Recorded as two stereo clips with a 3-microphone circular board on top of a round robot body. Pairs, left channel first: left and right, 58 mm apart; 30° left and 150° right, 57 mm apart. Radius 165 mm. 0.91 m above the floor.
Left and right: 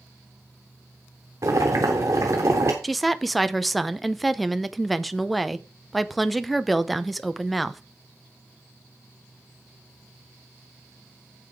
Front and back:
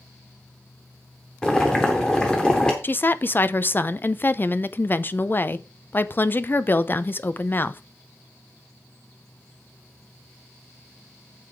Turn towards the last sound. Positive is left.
turn(degrees=0)